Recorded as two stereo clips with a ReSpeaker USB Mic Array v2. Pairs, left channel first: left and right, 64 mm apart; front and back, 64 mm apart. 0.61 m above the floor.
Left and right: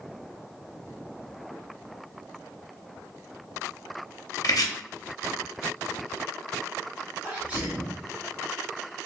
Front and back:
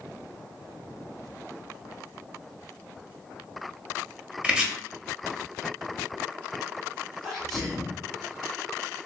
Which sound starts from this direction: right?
A sneeze, at 7.2 s.